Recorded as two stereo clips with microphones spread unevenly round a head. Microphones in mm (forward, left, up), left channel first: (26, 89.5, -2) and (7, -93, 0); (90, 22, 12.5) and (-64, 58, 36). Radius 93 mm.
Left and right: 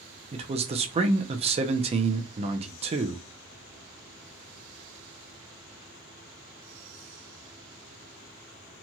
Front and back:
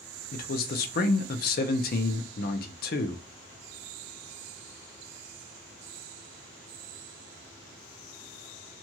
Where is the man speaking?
35° right, 0.5 m.